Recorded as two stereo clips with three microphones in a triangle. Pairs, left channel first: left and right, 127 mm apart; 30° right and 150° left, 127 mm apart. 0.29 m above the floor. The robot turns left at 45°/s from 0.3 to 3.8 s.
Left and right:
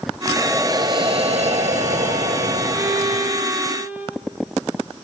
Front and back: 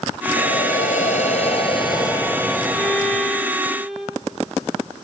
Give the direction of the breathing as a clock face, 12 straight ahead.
12 o'clock.